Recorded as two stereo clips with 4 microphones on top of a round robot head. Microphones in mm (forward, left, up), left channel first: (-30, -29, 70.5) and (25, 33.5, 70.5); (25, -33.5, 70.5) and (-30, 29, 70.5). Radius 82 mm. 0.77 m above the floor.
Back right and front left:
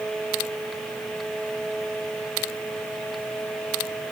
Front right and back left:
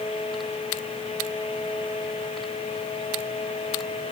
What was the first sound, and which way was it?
Only background noise.